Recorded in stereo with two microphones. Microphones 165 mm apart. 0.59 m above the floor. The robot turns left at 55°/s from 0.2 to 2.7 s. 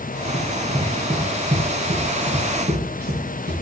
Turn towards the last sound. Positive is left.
turn(degrees=-65)  # may be behind; listen again after turning